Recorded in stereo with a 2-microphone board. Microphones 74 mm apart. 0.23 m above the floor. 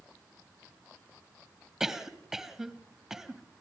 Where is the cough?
5° right (ahead or behind), 1.4 m.